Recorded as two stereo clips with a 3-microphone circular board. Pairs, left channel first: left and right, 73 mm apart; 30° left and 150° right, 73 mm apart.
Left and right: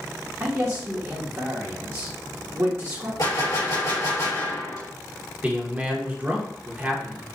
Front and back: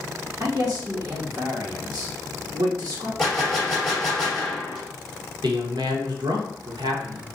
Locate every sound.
0.4 s a man speaking: 130° right, 1.1 m
3.2 s a gunshot: 115° left, 2 m
5.4 s a man speaking: 160° right, 0.9 m